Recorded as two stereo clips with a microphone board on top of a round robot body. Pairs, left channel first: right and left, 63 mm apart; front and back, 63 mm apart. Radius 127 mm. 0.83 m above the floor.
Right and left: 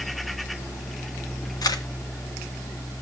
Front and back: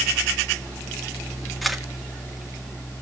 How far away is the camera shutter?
About 1.9 m.